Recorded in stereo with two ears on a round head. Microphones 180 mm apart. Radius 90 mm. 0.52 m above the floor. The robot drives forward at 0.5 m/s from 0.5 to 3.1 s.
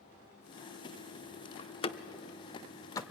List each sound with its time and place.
1.6 s a door slam: 30° left (ahead or behind), 0.8 m; by 3.0 s 20° left (ahead or behind), 1.2 m